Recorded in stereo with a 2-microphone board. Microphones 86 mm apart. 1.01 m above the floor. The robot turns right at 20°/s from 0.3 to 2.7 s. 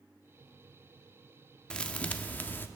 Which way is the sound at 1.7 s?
10° left (ahead or behind).